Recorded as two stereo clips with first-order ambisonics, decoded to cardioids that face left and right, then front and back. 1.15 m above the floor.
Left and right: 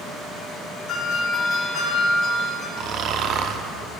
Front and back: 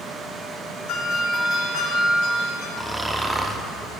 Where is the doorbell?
30° left, 6 m.